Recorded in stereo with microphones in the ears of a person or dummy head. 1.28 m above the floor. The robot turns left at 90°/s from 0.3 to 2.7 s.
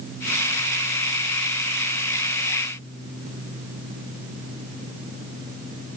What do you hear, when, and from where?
Only background noise.